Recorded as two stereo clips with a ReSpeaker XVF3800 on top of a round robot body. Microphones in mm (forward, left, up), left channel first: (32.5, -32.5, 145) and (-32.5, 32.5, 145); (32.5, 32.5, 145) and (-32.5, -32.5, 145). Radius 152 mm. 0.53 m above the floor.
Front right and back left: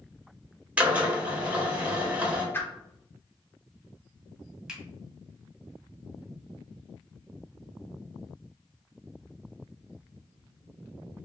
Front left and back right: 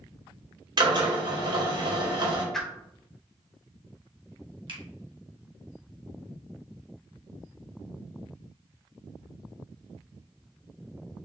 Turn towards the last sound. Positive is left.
turn(degrees=-145)